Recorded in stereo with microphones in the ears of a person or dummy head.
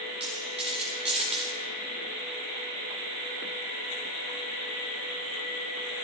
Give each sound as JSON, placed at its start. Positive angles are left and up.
{"t": 0.2, "sound": "a dropped coin", "side_deg": -30, "distance_m": 1.6}